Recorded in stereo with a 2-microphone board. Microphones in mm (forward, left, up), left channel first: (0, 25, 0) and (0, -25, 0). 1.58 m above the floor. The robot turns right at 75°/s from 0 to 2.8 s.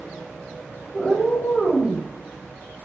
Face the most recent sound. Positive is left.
turn(degrees=110)